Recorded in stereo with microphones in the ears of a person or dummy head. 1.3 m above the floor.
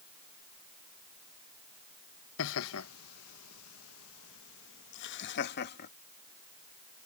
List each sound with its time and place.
2.4 s laughter: 70° left (ahead or behind); by 5.9 s 50° left (ahead or behind)